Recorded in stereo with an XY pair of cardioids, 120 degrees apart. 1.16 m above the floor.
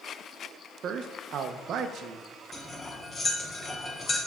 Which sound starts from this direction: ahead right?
A man speaking, at 0.8 s.